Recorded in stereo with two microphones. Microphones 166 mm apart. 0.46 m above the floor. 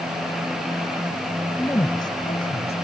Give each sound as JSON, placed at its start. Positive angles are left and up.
{"t": 1.6, "sound": "a woman speaking", "side_deg": 15}